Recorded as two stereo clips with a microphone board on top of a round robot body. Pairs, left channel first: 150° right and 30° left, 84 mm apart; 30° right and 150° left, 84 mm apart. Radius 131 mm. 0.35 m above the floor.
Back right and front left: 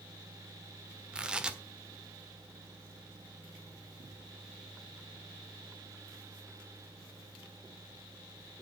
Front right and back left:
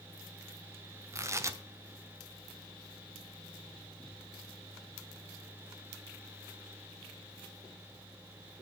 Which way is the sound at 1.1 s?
105° left.